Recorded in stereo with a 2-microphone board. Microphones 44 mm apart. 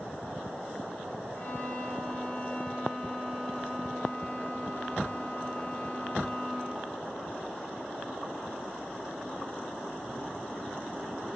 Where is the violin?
55° left (ahead or behind), 6.5 m.